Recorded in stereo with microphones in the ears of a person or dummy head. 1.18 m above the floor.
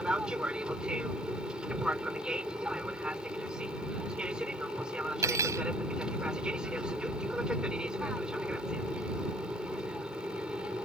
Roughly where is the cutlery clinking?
Centre.